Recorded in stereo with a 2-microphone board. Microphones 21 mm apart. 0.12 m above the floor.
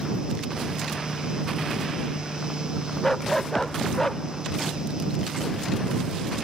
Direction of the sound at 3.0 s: 10° left (ahead or behind).